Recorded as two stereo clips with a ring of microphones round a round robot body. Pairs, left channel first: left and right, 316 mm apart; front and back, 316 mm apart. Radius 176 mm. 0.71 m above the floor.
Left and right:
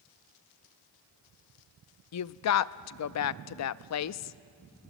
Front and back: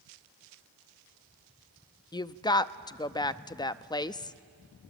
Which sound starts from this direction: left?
A woman speaking, at 2.1 s.